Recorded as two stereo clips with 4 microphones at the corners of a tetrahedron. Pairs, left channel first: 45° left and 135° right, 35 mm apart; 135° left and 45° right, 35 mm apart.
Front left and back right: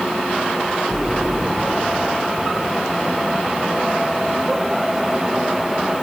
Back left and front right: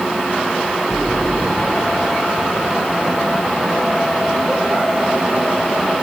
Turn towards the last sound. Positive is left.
turn(degrees=150)